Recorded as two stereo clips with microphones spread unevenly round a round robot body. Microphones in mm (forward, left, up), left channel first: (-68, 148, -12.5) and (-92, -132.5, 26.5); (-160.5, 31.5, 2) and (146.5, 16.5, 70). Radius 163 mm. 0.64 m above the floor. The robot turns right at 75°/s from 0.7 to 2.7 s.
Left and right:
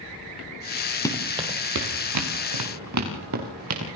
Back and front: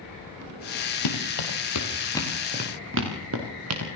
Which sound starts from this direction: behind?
Running footsteps, at 1.1 s.